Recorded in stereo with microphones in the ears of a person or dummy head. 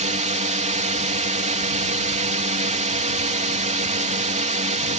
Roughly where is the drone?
Right.